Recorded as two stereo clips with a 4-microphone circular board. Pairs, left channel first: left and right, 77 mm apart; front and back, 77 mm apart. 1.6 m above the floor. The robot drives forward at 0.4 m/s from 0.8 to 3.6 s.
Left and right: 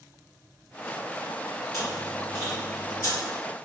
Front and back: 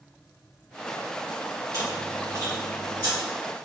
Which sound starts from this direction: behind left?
Chewing, at 1.7 s.